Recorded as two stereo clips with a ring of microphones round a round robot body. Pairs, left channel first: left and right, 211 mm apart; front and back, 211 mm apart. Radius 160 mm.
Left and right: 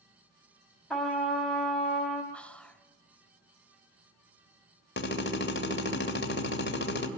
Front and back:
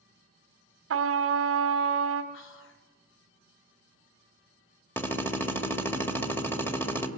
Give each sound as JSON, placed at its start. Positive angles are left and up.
{"t": 0.9, "sound": "a trumpet", "azimuth_deg": 175, "distance_m": 1.6}
{"t": 2.3, "sound": "whispering", "azimuth_deg": 5, "distance_m": 1.5}
{"t": 5.0, "sound": "a drill", "azimuth_deg": 80, "distance_m": 2.5}